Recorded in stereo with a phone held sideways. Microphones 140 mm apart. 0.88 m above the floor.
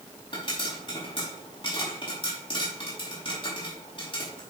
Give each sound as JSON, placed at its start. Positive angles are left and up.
{"t": 0.3, "sound": "a pop", "side_deg": 35, "distance_m": 5.5}